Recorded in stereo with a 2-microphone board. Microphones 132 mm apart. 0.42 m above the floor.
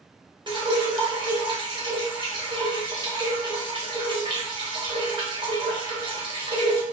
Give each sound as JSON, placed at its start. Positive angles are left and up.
{"t": 0.5, "sound": "dripping", "side_deg": -40, "distance_m": 1.4}